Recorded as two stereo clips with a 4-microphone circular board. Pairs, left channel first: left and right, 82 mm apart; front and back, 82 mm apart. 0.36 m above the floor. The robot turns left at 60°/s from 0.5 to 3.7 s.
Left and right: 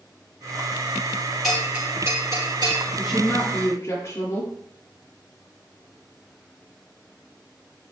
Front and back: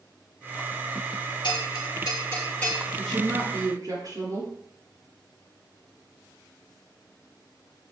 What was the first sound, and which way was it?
A bell, straight ahead.